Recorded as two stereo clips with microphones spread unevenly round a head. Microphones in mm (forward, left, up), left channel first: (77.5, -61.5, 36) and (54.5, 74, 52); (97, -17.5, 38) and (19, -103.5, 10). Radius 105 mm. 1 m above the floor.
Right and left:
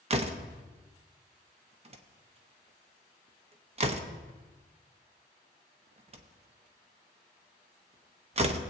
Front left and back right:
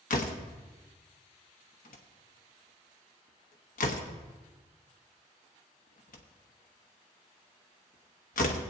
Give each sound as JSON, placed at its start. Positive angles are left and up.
{"t": 0.1, "sound": "a door slam", "azimuth_deg": 55, "distance_m": 1.0}